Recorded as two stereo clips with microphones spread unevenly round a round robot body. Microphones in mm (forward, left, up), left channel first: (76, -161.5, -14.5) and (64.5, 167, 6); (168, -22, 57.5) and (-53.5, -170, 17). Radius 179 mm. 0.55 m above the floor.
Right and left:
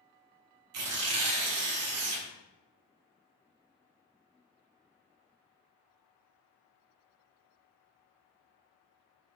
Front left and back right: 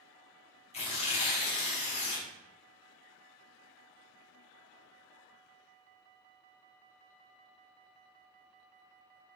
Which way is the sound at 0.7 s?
100° left.